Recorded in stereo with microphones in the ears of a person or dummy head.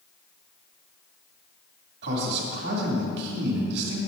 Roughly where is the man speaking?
Right.